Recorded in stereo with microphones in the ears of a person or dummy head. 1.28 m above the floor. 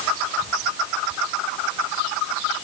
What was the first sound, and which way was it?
Only background noise.